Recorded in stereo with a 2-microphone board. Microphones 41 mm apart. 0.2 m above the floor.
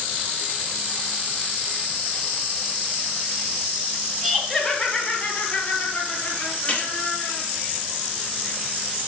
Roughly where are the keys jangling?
Left.